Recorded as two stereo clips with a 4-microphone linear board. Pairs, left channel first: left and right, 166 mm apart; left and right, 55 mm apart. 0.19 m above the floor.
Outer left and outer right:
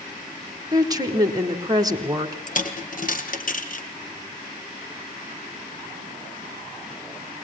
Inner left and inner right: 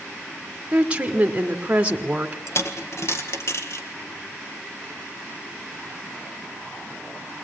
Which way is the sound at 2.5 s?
60° left (ahead or behind).